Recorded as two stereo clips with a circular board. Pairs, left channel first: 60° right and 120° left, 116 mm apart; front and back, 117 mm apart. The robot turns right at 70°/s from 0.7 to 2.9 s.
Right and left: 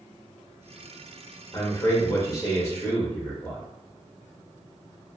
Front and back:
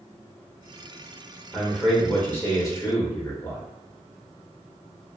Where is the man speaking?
105° right, 1.0 m; by 3.6 s 10° right, 1.0 m.